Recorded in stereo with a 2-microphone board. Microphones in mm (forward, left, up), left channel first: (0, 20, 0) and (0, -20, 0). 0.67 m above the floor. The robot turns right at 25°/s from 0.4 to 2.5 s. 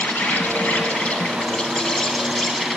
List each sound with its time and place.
0.0 s an insect: 125° left, 0.8 m; by 2.8 s 175° left, 0.8 m